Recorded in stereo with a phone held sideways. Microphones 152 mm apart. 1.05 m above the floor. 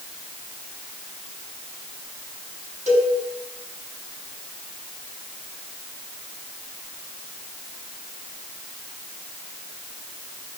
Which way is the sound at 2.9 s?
50° right (ahead or behind).